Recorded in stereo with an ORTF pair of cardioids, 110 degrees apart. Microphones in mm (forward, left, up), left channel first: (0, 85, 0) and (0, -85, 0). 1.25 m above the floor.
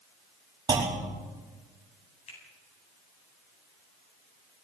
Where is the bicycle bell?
I don't hear a bicycle bell.